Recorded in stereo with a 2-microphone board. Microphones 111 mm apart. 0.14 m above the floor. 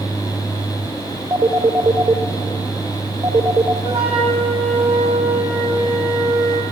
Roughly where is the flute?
Right.